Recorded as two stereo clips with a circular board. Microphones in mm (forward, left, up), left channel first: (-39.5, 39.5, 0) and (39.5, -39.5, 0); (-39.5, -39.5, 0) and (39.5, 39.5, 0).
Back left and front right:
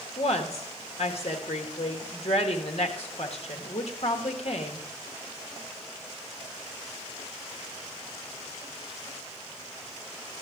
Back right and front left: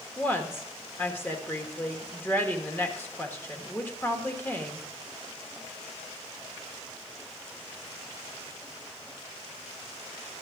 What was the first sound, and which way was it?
A woman speaking, 155° left.